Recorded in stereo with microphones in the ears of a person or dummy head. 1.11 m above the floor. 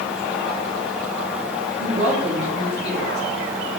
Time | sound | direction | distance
1.8 | a woman speaking | 35° right (ahead or behind) | 2.5 m